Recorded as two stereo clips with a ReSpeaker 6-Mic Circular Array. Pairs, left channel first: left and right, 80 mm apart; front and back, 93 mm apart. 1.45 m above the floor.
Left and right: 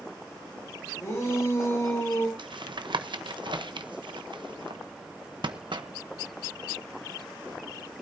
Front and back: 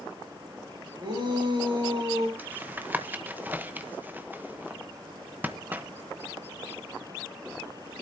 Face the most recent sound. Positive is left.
turn(degrees=-110)